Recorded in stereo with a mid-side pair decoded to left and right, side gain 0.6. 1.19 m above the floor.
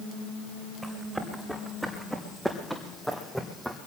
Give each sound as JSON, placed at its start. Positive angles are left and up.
{"t": 0.8, "sound": "running footsteps", "azimuth_deg": -5, "distance_m": 5.0}